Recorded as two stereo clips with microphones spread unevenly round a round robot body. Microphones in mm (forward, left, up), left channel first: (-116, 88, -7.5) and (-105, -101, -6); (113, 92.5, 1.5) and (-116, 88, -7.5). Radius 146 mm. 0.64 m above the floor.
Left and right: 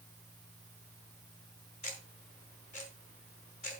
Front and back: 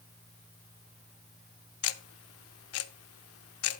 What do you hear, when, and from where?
1.8 s ticking: 25° left, 0.6 m